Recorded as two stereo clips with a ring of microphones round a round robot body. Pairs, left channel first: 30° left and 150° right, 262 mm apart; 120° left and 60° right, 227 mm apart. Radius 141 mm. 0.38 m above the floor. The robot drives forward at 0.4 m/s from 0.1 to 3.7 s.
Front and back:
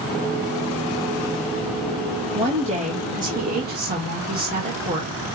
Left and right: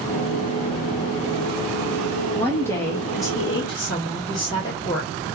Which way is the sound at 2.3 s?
170° right.